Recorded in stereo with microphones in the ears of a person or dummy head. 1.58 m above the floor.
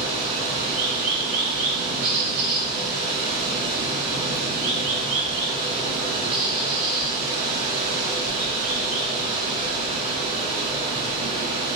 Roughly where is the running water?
Right.